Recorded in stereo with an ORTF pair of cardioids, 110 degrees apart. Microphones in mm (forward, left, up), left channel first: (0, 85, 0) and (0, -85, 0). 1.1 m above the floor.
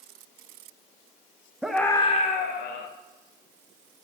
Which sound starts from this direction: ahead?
A scream, at 1.6 s.